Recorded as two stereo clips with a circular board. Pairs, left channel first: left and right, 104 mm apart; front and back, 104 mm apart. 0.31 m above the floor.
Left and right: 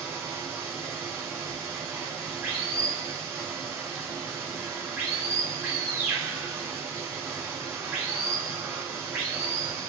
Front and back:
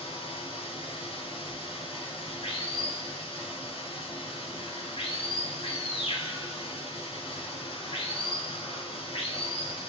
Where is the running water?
20° right, 1.9 m.